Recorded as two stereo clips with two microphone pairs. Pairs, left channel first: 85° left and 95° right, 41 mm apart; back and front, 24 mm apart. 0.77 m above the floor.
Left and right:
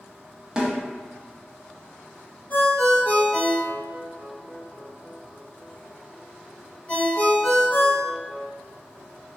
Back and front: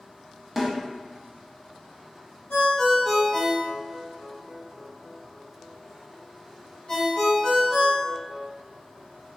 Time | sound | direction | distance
0.6 | a snare drum | 100° right | 0.6 m
2.5 | a ringtone | 135° left | 1.0 m